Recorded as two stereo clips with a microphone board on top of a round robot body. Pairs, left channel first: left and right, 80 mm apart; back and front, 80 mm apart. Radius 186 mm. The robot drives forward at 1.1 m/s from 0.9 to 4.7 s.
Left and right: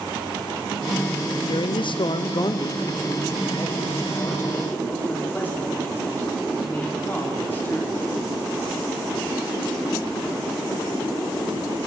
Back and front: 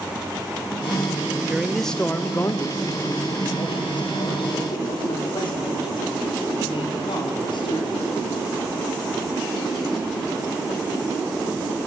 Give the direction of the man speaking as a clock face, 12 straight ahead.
9 o'clock.